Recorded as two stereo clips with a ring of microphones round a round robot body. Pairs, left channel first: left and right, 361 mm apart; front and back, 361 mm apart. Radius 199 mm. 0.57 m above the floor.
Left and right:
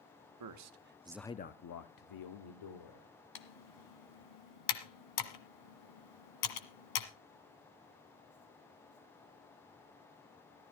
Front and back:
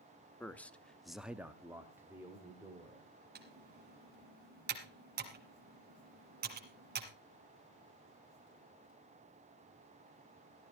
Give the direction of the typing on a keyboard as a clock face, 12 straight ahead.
8 o'clock.